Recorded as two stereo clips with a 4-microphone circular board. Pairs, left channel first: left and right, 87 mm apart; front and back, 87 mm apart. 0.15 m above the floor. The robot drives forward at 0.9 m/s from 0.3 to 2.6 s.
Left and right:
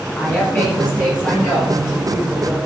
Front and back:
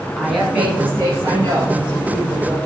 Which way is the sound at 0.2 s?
105° left.